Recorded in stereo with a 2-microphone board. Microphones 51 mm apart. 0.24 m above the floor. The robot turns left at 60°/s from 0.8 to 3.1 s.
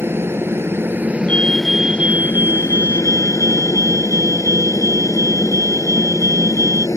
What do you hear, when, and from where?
0.0 s a helicopter: 130° right; by 7.0 s 90° left
1.3 s a fire alarm: 25° left; by 6.9 s 85° right